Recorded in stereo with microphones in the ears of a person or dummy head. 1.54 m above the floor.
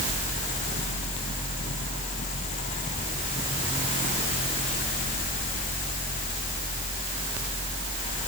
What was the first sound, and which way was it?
Only background noise.